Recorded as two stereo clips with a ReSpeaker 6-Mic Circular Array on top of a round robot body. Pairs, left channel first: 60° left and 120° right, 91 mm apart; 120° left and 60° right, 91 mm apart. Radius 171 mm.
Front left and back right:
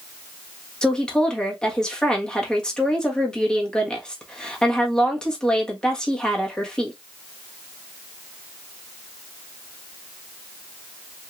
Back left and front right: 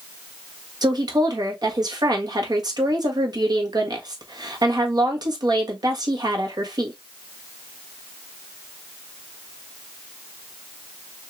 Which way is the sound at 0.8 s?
20° right.